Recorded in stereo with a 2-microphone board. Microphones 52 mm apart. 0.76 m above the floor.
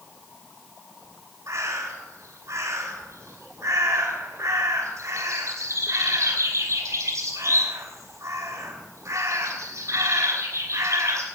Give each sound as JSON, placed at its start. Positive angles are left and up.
{"t": 1.5, "sound": "a bird", "side_deg": -80, "distance_m": 3.0}